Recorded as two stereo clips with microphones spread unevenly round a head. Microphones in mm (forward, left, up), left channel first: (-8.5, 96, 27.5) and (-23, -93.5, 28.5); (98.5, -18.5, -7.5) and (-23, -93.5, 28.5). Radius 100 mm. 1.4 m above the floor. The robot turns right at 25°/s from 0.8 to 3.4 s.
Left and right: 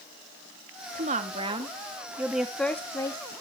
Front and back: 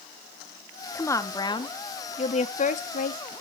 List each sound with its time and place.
0.9 s a woman speaking: 45° right, 2 m; by 3.4 s 20° left, 2 m